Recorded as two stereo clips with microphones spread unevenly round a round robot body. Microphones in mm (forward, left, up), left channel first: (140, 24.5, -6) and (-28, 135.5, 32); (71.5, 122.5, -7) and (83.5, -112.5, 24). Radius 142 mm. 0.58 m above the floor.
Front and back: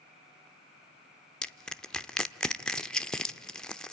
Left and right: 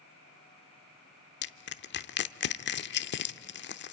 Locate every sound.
1.4 s crushing: 50° left, 0.7 m